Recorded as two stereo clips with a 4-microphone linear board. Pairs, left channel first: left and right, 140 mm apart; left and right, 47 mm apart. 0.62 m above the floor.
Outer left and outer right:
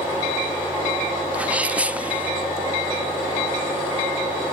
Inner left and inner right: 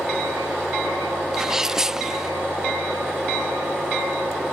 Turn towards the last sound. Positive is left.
turn(degrees=-10)  # may be behind; listen again after turning